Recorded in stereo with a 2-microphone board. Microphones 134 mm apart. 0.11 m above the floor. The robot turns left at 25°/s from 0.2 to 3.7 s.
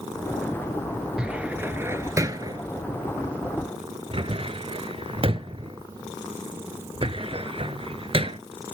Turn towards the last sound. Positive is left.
turn(degrees=-40)  # may be behind; listen again after turning